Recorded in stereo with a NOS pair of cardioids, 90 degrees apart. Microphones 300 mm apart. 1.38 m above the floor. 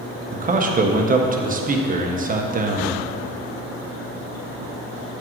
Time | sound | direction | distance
0.3 | a man speaking | 30° right | 1.0 m